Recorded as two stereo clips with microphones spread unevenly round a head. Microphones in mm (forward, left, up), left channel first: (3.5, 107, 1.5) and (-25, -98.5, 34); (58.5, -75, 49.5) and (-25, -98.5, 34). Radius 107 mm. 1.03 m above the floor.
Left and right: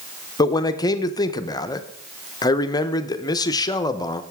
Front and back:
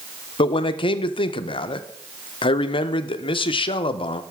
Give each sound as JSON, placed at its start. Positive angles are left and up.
{"t": 0.4, "sound": "a man speaking", "azimuth_deg": 20, "distance_m": 0.6}